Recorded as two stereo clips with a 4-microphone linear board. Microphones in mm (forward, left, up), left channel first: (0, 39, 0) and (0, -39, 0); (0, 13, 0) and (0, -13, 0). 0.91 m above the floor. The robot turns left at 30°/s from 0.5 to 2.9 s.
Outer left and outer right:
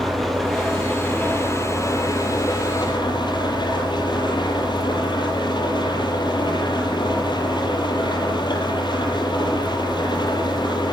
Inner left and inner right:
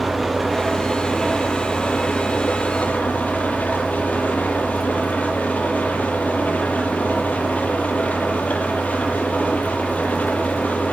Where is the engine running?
175° left, 6.5 m; by 10.9 s 105° left, 6.5 m.